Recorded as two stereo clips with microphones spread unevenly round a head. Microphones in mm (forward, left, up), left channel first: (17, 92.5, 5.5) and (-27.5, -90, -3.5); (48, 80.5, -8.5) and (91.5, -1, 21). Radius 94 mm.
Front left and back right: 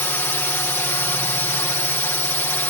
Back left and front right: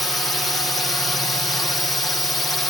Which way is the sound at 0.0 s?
140° left.